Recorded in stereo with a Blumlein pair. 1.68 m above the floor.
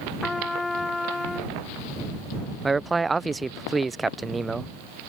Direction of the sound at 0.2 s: 10° left.